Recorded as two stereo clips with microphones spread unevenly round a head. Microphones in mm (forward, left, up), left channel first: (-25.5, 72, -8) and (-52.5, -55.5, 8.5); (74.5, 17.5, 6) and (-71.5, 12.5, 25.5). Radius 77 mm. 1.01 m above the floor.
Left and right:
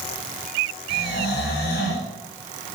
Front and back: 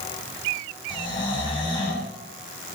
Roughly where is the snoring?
Ahead left.